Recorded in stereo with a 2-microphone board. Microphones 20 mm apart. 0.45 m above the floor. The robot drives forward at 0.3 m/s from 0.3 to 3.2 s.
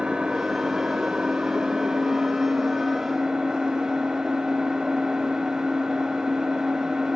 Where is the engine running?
70° right (ahead or behind), 0.7 m; by 7.2 s 40° right (ahead or behind), 1.0 m.